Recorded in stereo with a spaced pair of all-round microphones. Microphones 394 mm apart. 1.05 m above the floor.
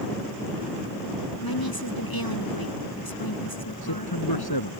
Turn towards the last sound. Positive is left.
turn(degrees=70)  # may be behind; listen again after turning